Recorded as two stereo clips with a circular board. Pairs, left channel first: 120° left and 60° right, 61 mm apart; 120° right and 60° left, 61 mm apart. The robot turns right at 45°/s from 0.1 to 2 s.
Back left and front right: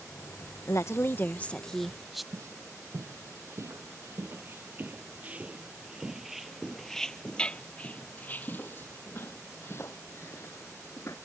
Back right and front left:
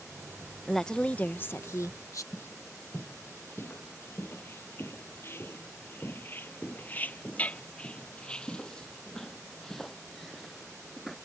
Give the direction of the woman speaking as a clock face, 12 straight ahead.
7 o'clock.